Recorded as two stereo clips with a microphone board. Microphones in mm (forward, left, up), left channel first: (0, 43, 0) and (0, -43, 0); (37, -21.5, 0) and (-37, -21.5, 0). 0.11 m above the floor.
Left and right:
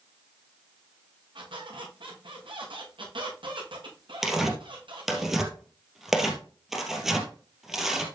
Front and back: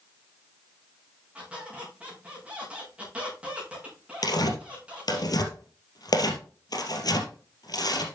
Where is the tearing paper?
5° right, 2.5 m.